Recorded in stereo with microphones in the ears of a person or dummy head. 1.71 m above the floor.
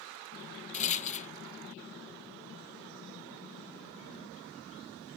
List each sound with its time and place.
0.7 s a rattle: 40° left (ahead or behind)